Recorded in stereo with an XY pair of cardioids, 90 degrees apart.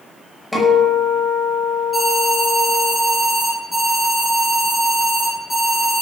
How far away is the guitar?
About 5.5 m.